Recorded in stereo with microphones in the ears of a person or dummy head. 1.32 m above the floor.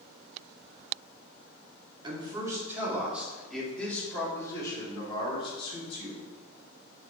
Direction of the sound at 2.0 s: 25° right (ahead or behind).